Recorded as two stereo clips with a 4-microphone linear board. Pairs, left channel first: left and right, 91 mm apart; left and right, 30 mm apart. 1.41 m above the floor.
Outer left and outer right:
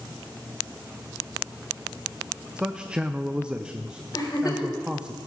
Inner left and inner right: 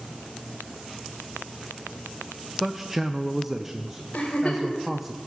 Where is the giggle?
45° left (ahead or behind), 4 m.